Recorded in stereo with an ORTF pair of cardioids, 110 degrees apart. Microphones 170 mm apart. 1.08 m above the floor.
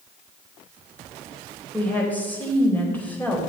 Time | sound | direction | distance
1.7 | a woman speaking | 10° left | 4 m